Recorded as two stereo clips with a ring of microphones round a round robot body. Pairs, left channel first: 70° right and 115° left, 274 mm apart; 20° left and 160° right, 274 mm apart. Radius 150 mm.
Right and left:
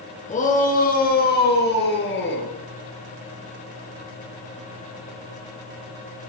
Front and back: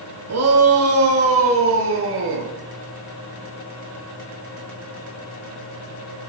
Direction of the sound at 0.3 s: 130° right.